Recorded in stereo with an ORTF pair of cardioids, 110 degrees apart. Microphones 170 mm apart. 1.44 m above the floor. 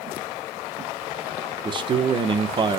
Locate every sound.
1.6 s a man speaking: 30° right, 1.0 m